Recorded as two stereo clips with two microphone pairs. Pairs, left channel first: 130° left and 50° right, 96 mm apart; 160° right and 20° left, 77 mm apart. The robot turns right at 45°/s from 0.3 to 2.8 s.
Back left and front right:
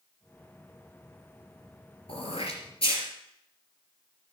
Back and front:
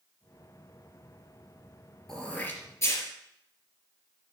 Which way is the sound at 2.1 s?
115° left.